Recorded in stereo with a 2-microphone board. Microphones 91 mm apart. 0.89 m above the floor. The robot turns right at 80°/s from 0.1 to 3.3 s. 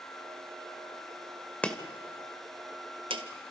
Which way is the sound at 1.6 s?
15° left (ahead or behind).